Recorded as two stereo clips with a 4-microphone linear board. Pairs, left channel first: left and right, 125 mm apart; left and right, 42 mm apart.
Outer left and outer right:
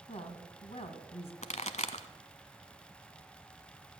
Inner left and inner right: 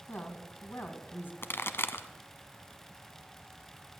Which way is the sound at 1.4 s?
65° left (ahead or behind).